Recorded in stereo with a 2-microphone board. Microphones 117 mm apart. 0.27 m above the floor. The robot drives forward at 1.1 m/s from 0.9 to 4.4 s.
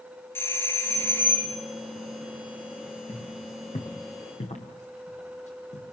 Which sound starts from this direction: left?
Footsteps, at 3.1 s.